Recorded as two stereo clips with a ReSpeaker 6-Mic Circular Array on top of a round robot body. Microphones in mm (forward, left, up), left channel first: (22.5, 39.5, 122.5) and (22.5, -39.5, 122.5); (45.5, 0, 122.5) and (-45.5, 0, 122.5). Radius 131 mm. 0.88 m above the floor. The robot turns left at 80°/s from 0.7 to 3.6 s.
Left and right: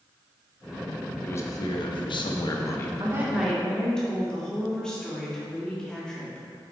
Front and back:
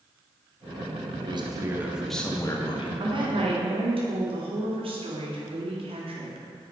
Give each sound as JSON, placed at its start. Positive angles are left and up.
{"t": 1.2, "sound": "a man speaking", "azimuth_deg": 155, "distance_m": 1.4}
{"t": 3.0, "sound": "a woman speaking", "azimuth_deg": -140, "distance_m": 2.5}